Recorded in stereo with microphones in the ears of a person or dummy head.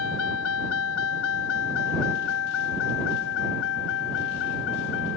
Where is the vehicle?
80° left; by 5.2 s 65° left (ahead or behind).